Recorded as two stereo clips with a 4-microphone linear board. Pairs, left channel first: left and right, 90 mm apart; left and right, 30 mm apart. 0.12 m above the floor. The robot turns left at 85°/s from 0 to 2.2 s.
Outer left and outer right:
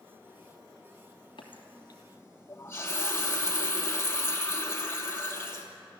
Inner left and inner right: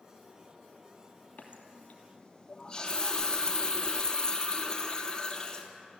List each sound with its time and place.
1.4 s a running tap: 95° left, 2.5 m; by 5.7 s 25° left, 2.5 m